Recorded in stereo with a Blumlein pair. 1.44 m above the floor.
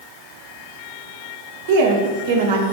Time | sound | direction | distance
1.7 | a woman speaking | 55° right | 0.7 m